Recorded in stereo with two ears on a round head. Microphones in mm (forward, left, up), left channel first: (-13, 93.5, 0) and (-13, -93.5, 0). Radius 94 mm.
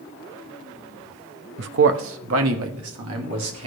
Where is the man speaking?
60° right (ahead or behind), 0.7 m; by 3.7 s 85° right, 2.5 m.